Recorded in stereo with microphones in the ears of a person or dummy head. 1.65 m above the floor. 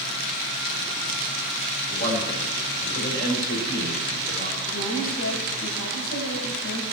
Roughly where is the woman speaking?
Left.